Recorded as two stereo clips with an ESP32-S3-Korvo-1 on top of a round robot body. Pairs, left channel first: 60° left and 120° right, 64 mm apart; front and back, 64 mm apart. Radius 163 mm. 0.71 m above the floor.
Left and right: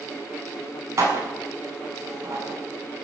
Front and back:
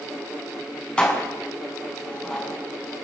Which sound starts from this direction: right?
Dishes clattering, at 1.0 s.